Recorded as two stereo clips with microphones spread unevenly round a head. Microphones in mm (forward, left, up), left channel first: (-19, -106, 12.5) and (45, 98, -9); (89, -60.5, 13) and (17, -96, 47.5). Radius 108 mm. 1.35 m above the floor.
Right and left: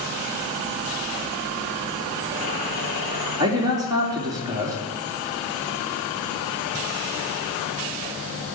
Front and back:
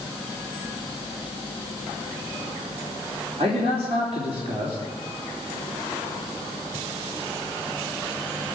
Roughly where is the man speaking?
Behind left.